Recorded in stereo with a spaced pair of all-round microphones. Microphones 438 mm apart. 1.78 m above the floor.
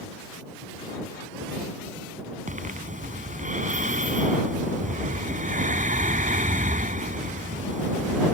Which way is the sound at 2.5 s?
15° right (ahead or behind).